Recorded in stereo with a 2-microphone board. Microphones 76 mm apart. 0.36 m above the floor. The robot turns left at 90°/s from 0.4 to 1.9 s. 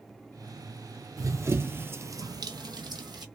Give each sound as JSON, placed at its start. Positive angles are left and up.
{"t": 1.2, "sound": "running footsteps", "side_deg": -50, "distance_m": 0.7}